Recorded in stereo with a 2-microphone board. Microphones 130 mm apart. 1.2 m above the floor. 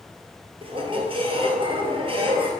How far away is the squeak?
About 1.9 m.